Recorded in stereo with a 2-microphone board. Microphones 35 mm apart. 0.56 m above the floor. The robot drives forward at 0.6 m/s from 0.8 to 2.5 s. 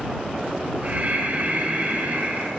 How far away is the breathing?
About 3.5 m.